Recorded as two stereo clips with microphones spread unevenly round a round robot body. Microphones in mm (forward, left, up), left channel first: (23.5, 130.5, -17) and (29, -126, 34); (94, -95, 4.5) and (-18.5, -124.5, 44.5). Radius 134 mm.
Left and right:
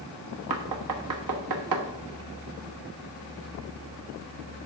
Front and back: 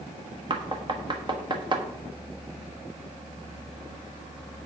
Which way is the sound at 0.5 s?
105° right.